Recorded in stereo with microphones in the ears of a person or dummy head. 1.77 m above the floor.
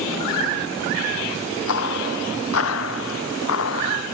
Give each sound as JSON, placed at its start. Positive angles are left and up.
{"t": 1.7, "sound": "footsteps", "side_deg": 85}